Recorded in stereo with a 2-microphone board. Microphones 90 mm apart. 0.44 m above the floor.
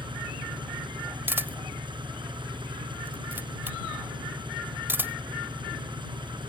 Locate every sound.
0.0 s an engine running: 60° right (ahead or behind)
1.3 s a camera shutter: 25° right (ahead or behind)